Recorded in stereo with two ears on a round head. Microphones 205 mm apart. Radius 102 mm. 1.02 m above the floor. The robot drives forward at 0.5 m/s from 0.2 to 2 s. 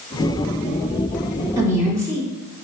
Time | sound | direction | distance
1.6 | a woman speaking | 15° right (ahead or behind) | 2 m